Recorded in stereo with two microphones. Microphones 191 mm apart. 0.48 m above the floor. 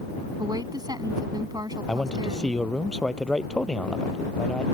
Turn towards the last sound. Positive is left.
turn(degrees=5)  # may be behind; listen again after turning